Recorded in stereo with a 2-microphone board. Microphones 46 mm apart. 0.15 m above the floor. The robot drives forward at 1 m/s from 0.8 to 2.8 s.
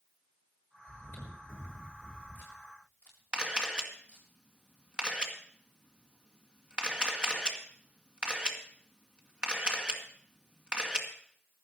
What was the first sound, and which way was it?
Chewing, 55° left (ahead or behind).